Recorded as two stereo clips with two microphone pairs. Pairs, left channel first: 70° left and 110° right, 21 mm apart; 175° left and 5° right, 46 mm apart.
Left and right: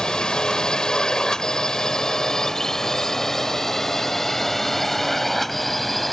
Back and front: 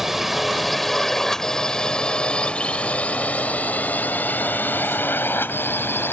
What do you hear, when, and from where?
0.0 s a drone: 80° left; by 6.1 s 155° left